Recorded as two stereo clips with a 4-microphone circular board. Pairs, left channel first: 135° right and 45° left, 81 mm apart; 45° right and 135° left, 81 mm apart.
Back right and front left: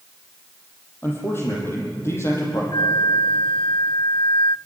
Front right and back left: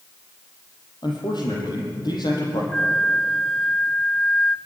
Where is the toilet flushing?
No toilet flushing in this recording.